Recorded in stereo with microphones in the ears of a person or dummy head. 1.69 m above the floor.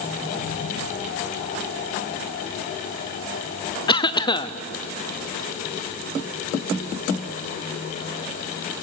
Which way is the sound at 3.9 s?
30° left (ahead or behind).